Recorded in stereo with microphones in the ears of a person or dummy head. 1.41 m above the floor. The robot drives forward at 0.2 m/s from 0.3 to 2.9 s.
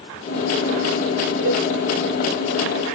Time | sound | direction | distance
1.4 | a cowbell | 45° right (ahead or behind) | 1.7 m